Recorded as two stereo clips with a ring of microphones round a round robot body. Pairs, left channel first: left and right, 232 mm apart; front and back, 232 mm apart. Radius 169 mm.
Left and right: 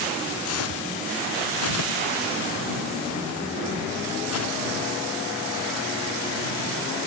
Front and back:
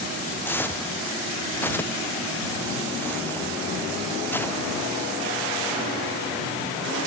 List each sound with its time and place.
0.5 s footsteps: 80° left